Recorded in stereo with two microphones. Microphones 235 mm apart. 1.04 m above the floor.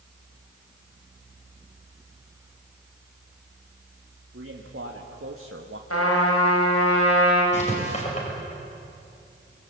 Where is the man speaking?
70° right (ahead or behind), 2.5 m; by 5.8 s 60° right (ahead or behind), 1.3 m.